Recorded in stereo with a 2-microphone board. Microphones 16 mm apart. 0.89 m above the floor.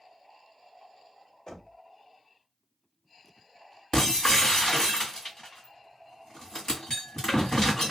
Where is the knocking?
40° left (ahead or behind), 1.7 m.